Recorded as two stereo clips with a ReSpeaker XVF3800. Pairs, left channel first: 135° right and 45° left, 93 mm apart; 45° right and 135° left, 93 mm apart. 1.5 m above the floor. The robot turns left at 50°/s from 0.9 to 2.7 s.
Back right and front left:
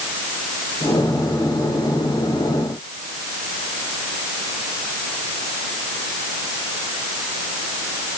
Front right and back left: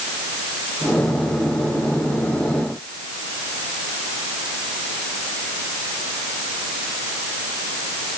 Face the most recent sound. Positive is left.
No sound to turn to.